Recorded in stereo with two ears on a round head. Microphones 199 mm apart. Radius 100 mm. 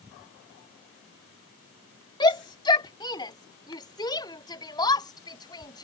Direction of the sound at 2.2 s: 20° left (ahead or behind).